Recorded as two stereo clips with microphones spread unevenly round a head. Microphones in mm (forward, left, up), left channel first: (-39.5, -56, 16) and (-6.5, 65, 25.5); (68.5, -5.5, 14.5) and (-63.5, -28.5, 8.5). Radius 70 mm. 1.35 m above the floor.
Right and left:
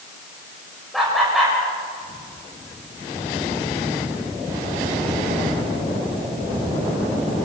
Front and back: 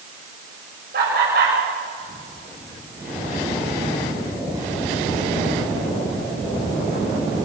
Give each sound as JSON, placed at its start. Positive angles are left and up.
{"t": 0.9, "sound": "laughter", "azimuth_deg": 165, "distance_m": 7.5}